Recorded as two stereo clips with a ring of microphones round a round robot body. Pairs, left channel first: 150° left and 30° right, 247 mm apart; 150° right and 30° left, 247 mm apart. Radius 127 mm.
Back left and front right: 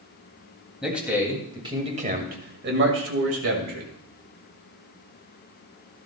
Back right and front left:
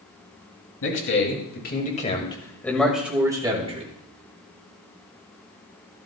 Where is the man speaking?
120° right, 3 m; by 3.9 s 30° right, 2.5 m.